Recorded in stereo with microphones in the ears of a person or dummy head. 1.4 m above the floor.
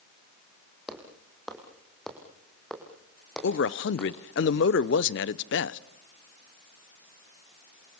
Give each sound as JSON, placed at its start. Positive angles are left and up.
{"t": 0.9, "sound": "footsteps", "side_deg": -5, "distance_m": 4.0}
{"t": 3.4, "sound": "a man speaking", "side_deg": 60, "distance_m": 0.9}